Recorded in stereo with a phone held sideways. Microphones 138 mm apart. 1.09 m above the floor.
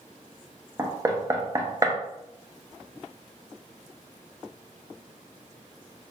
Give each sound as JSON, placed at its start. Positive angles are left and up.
{"t": 0.8, "sound": "knocking", "side_deg": -25, "distance_m": 0.5}